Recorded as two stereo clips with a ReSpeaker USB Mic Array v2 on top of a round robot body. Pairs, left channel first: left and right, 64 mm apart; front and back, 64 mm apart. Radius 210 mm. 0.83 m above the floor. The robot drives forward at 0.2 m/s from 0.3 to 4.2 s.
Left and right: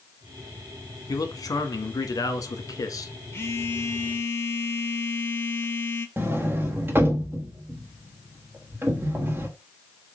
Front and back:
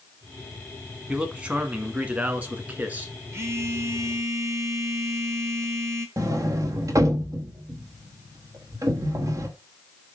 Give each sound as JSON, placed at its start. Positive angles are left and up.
{"t": 1.1, "sound": "a man speaking", "azimuth_deg": 105, "distance_m": 1.8}
{"t": 3.3, "sound": "a phone buzzing", "azimuth_deg": 135, "distance_m": 1.4}
{"t": 6.2, "sound": "a sliding door", "azimuth_deg": -145, "distance_m": 1.2}